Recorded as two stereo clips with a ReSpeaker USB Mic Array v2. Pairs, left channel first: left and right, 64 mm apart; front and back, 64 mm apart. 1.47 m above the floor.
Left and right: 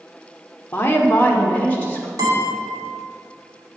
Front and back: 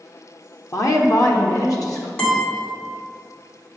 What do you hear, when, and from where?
0.7 s a woman speaking: 30° left, 0.9 m; by 2.1 s 25° left, 1.7 m
2.2 s a guitar: 70° right, 2.5 m